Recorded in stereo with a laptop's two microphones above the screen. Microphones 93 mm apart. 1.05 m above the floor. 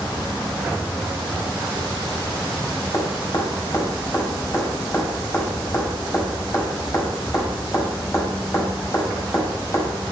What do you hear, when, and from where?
2.9 s dripping: 35° left (ahead or behind), 5 m